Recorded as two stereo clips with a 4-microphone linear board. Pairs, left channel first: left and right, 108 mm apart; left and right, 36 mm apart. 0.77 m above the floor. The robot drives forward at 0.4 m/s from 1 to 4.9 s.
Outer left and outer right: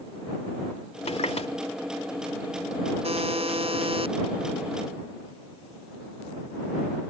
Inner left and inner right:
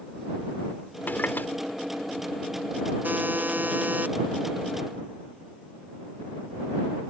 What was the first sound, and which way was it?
A running tap, 80° left.